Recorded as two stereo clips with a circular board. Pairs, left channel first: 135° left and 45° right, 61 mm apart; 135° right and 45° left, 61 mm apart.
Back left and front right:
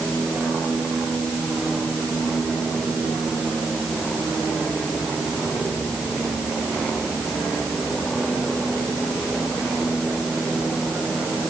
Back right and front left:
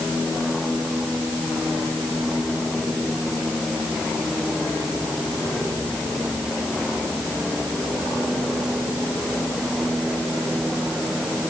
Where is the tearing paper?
I don't hear tearing paper.